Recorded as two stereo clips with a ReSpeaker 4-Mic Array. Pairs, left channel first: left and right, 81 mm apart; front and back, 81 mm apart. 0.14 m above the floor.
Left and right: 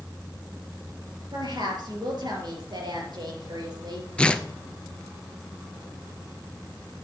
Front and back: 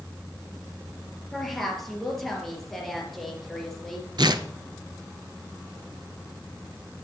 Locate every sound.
1.3 s a woman speaking: 90° right, 3 m
4.2 s tearing paper: 165° left, 0.6 m